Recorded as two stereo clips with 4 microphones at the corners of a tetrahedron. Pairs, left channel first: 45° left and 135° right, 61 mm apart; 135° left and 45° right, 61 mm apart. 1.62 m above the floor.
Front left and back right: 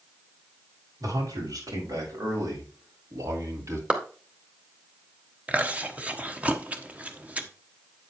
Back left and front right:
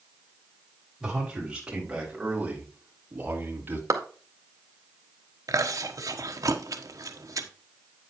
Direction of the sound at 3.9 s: 60° right.